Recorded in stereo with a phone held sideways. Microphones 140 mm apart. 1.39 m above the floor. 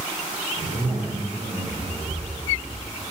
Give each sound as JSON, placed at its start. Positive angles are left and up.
{"t": 0.6, "sound": "a zipper", "side_deg": -70, "distance_m": 2.0}